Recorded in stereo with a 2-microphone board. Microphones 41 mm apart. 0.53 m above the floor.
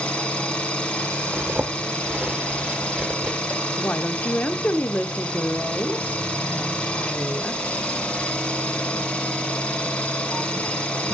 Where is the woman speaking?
45° left (ahead or behind), 1.0 m.